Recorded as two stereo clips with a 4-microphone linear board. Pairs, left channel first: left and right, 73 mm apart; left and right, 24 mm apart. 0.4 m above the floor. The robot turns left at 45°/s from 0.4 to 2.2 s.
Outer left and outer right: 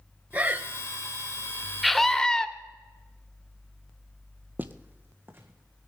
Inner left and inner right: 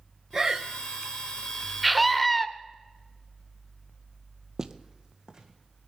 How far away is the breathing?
About 0.7 m.